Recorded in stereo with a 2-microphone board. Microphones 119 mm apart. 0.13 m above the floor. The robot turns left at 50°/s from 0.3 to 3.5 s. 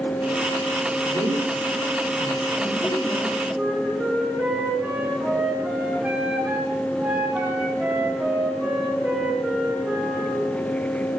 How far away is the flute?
About 4 m.